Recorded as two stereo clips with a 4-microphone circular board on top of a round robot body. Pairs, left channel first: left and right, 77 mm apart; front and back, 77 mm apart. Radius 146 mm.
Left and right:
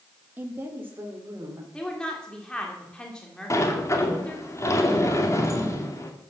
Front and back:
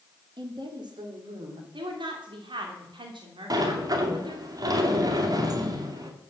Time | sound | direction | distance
0.4 | a woman speaking | 160° right | 1.9 m
1.7 | a woman speaking | 170° left | 2.5 m
3.5 | a sliding door | 140° left | 2.5 m